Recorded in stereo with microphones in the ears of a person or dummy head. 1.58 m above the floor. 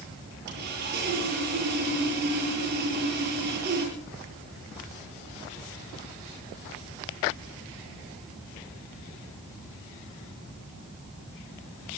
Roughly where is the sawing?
Right.